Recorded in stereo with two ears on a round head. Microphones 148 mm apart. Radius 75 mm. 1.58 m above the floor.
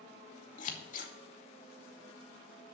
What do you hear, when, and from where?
0.6 s scissors: 50° left (ahead or behind), 2 m